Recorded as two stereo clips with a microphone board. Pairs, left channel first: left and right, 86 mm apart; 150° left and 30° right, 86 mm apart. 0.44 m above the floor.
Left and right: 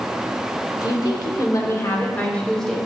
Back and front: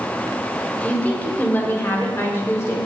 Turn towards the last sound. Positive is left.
turn(degrees=175)